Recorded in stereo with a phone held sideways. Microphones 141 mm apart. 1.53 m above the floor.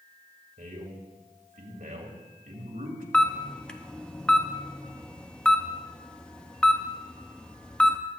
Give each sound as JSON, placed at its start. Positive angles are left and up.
{"t": 0.6, "sound": "a man speaking", "side_deg": -80, "distance_m": 2.5}
{"t": 3.1, "sound": "a camera shutter", "side_deg": 10, "distance_m": 0.7}